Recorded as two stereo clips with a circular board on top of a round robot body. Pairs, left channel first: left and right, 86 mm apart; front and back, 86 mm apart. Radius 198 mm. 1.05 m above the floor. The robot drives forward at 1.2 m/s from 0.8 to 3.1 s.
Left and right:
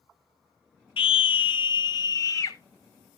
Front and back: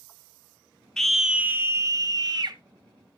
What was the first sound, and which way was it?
A scream, 85° left.